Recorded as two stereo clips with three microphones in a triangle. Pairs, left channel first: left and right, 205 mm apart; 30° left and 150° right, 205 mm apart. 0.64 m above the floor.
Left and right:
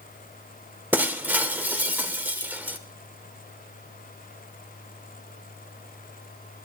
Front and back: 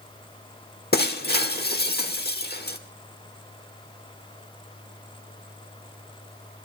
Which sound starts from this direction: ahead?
Breaking glass, at 0.9 s.